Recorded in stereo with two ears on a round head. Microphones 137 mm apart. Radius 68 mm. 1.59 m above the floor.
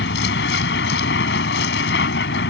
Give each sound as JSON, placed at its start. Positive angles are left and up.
{"t": 0.0, "sound": "a vehicle", "side_deg": 85}